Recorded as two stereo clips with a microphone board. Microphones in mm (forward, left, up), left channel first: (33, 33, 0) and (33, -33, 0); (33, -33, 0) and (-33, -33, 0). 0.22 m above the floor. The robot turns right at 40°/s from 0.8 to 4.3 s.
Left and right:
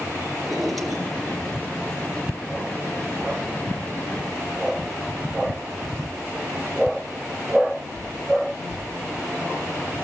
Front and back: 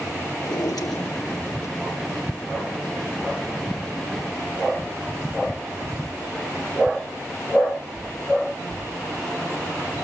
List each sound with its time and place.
0.4 s a drawer: straight ahead, 3 m; by 1.8 s 40° left, 3 m